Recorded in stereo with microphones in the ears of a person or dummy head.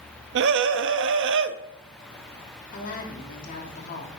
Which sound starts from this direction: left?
A woman speaking, at 2.7 s.